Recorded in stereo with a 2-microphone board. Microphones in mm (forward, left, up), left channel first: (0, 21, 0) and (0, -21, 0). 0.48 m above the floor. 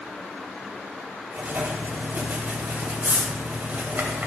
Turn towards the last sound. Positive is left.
turn(degrees=-45)  # may be behind; listen again after turning